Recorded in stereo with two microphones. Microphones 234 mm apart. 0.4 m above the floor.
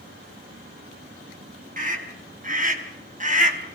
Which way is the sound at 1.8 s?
35° right (ahead or behind).